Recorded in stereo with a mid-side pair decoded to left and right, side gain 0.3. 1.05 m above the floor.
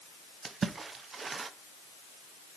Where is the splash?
60° right, 0.6 m.